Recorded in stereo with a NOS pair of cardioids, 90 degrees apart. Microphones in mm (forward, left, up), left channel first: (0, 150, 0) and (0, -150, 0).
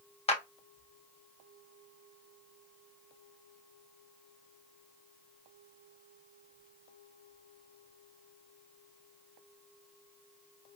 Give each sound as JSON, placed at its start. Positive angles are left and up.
{"t": 0.3, "sound": "a clap", "azimuth_deg": 20, "distance_m": 0.9}